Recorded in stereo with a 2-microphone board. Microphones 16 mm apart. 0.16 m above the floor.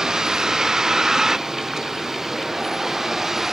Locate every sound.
0.0 s a vehicle: 35° right (ahead or behind); by 3.5 s 20° right (ahead or behind)